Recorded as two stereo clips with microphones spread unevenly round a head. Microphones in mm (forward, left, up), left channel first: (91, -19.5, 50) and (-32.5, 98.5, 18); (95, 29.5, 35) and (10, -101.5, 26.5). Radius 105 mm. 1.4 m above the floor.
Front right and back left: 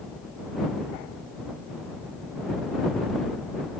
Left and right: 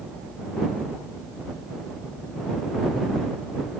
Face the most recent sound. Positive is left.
No sound to turn to.